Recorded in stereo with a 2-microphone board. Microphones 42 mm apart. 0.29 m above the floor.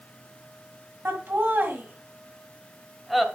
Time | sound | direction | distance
1.1 | laughter | 60° right (ahead or behind) | 1.9 m